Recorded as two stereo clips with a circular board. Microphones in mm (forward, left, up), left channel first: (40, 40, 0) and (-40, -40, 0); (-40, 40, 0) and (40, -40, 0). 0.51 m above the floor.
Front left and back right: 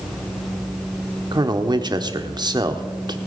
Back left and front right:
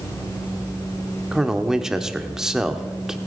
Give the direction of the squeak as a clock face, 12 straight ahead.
I don't hear a squeak.